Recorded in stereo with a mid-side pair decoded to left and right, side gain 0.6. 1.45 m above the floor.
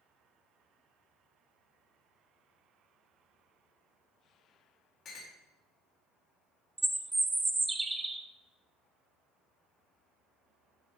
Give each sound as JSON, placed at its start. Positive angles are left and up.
{"t": 5.0, "sound": "a clink", "azimuth_deg": 45, "distance_m": 3.0}
{"t": 6.8, "sound": "a bird", "azimuth_deg": -15, "distance_m": 0.9}